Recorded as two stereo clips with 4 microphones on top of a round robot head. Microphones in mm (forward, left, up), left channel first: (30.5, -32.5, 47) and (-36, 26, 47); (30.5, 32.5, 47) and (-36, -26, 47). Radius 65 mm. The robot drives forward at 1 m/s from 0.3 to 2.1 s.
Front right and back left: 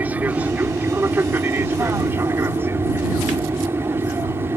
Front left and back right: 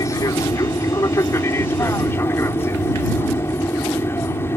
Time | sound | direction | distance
0.0 | an aircraft | 75° left | ?